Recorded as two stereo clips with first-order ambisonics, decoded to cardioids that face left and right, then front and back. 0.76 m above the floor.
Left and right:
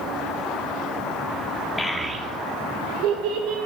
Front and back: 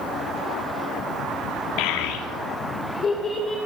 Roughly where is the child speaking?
Ahead.